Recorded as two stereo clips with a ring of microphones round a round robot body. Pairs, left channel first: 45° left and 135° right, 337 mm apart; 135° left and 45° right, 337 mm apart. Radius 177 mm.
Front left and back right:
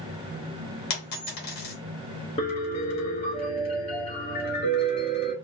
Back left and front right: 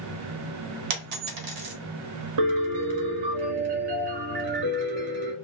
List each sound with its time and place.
0.9 s a dropped coin: 15° right, 1.2 m
2.4 s a piano: 30° right, 1.3 m